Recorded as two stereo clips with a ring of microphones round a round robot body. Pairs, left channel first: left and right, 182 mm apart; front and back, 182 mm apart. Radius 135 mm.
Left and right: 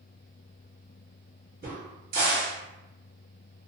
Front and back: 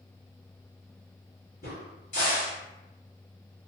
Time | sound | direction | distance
1.6 | a crack | 60° right | 1.2 m